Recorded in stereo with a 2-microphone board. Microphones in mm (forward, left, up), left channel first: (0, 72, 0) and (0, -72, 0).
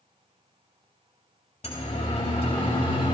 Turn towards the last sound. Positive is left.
turn(degrees=40)  # may be behind; listen again after turning